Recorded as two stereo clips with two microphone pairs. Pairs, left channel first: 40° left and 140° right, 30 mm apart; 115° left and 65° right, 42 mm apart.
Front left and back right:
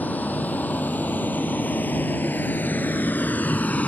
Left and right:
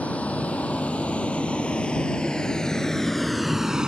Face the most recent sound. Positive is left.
turn(degrees=5)